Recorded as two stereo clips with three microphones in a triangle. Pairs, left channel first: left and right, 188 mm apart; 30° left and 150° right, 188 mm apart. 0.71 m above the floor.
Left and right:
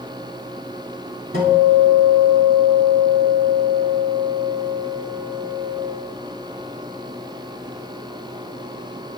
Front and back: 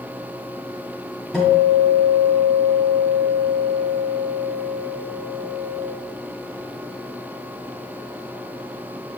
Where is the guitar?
55° right, 1.9 m.